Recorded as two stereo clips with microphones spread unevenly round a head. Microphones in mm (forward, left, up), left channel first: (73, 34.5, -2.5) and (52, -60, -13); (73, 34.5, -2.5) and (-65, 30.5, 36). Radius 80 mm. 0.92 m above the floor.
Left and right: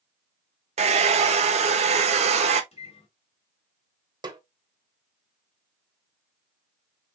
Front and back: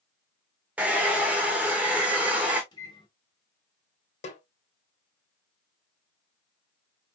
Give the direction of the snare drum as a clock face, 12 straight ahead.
2 o'clock.